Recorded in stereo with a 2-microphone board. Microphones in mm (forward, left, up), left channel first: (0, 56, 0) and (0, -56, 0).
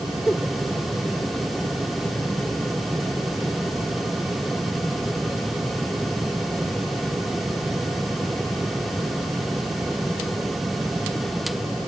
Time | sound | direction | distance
0.3 | a giggle | 15° left (ahead or behind) | ?